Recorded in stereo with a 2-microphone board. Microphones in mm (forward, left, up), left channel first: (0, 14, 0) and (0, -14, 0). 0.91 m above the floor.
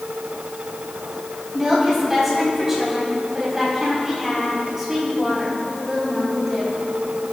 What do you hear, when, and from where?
1.5 s a woman speaking: 10° right (ahead or behind), 5.5 m